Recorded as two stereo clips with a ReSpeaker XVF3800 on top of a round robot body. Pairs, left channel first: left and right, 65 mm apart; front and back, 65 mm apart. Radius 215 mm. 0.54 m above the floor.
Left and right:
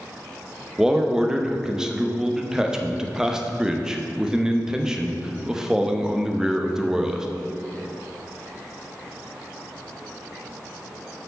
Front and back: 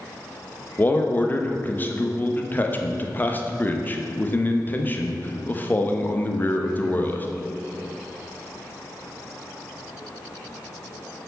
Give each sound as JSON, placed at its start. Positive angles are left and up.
{"t": 0.8, "sound": "a man speaking", "azimuth_deg": -20, "distance_m": 1.1}